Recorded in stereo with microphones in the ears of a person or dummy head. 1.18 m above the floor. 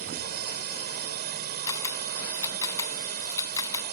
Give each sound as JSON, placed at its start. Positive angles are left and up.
{"t": 0.0, "sound": "a drone", "side_deg": -45}
{"t": 1.7, "sound": "a camera shutter", "side_deg": 15}